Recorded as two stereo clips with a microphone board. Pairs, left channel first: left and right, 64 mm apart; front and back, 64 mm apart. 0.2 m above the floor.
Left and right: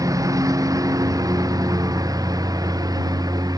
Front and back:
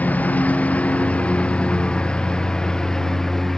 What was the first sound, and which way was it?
A lawn mower, 65° right.